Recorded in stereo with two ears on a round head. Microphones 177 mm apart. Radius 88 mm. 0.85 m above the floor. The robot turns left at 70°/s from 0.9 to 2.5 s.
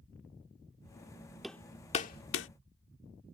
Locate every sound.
1.4 s hammering: centre (ahead or behind); by 2.5 s 70° left (ahead or behind)